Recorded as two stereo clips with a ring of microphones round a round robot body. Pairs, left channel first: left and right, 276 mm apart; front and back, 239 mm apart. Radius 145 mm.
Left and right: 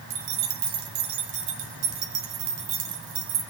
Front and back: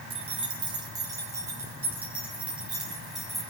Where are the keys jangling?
115° right, 1.9 m; by 3.4 s 90° right, 3 m.